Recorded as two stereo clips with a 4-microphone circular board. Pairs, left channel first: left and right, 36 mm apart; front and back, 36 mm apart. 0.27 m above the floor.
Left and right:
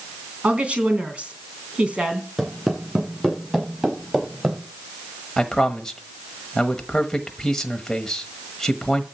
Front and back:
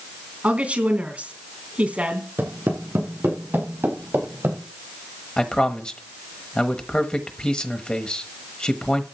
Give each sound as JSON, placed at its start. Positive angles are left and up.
{"t": 0.4, "sound": "a woman speaking", "azimuth_deg": -140, "distance_m": 3.0}
{"t": 2.4, "sound": "footsteps", "azimuth_deg": 180, "distance_m": 6.5}
{"t": 5.4, "sound": "a man speaking", "azimuth_deg": 25, "distance_m": 1.1}